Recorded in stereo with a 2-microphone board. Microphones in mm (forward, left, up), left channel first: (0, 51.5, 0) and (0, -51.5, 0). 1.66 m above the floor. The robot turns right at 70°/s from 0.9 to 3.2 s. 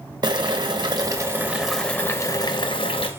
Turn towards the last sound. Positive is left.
turn(degrees=105)